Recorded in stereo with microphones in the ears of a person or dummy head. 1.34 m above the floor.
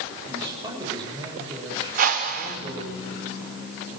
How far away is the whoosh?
About 1.7 m.